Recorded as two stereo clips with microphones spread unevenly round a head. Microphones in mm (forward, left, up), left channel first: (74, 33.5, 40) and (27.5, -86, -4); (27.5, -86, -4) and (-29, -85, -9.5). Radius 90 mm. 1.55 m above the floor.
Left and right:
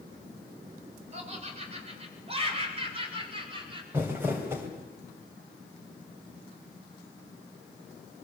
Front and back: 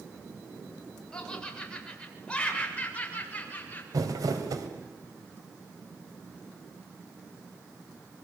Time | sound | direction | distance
1.1 | laughter | 75° right | 7 m
3.9 | crumpling | 160° left | 2.5 m